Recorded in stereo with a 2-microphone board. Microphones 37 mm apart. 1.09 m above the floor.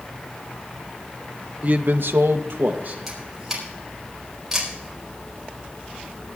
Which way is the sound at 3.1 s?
15° right (ahead or behind).